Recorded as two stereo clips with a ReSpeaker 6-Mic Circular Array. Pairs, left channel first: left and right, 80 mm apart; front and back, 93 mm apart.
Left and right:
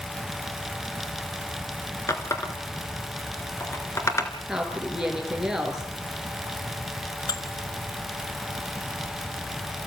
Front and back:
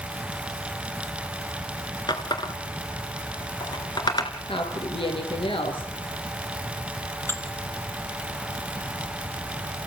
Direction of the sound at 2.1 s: 40° left.